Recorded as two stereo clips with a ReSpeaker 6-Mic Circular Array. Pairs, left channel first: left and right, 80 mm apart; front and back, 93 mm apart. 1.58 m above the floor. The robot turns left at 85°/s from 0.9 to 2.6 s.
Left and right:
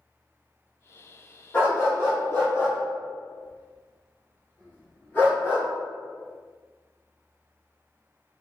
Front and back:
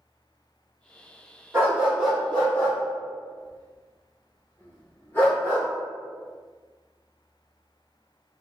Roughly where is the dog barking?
Behind left.